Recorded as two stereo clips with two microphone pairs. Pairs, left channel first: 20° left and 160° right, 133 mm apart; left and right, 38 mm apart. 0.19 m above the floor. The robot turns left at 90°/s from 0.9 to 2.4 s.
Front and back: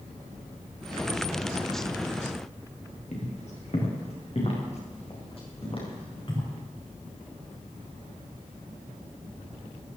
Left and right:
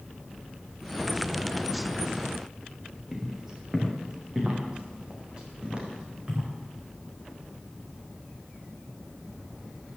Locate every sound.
3.1 s footsteps: 15° right, 4.5 m; by 6.5 s 30° right, 6.5 m